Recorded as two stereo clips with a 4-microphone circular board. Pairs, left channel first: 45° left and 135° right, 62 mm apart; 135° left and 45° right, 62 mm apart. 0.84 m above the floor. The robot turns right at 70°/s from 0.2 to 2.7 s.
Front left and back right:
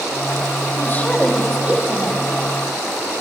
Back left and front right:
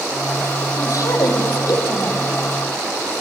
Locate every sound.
0.8 s a woman speaking: 90° left, 5.5 m; by 2.3 s 160° right, 5.5 m